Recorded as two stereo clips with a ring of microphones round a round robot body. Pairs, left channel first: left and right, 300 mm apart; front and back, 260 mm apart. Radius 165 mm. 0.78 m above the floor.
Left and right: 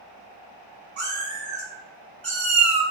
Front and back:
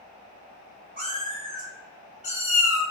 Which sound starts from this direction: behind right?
A cat meowing, at 1.0 s.